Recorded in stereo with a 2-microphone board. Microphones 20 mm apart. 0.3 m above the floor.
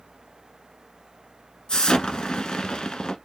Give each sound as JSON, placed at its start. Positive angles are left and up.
{"t": 1.7, "sound": "an explosion", "side_deg": 55, "distance_m": 1.2}